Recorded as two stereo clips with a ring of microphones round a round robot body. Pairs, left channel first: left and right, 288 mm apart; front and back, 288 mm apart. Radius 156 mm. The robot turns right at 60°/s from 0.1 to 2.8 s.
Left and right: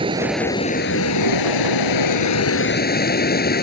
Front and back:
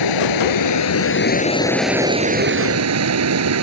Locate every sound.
0.0 s running water: 15° right; by 3.6 s 145° left